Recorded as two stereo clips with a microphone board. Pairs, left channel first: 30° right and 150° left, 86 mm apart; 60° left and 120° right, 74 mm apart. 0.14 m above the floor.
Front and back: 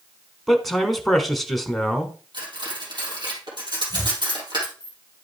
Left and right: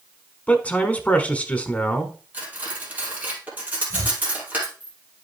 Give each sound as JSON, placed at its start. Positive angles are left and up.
{"t": 0.5, "sound": "a man speaking", "azimuth_deg": 55, "distance_m": 1.1}
{"t": 2.3, "sound": "cutlery clinking", "azimuth_deg": 175, "distance_m": 2.5}
{"t": 3.9, "sound": "chopping", "azimuth_deg": -85, "distance_m": 0.8}